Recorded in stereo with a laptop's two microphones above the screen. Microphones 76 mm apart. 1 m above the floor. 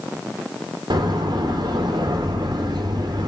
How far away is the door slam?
About 2.5 m.